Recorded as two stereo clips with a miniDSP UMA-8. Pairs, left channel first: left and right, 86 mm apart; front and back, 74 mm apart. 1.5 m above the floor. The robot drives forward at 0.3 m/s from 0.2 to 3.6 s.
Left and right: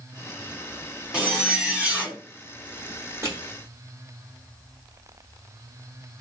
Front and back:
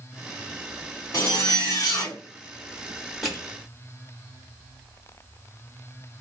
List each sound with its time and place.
1.1 s a zipper: 10° right, 1.1 m; by 2.2 s 15° right, 0.9 m
3.2 s crushing: 90° right, 1.3 m; by 3.4 s 95° right, 1.3 m